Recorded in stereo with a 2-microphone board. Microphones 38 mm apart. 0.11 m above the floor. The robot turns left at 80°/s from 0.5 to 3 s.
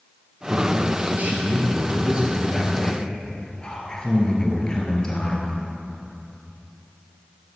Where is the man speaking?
10° right, 2.5 m; by 5.5 s 150° left, 2.5 m.